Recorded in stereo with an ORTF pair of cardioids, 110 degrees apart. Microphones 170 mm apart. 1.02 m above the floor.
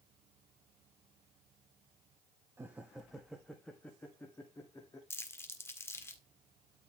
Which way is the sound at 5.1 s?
15° left.